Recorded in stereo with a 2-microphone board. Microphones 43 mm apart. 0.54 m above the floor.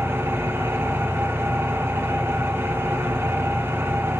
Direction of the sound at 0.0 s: 65° right (ahead or behind).